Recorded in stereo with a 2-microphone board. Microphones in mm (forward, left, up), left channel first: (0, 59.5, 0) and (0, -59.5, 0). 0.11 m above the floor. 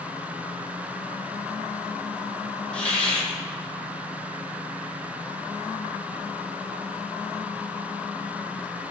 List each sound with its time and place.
2.7 s a hiss: 10° left (ahead or behind), 0.7 m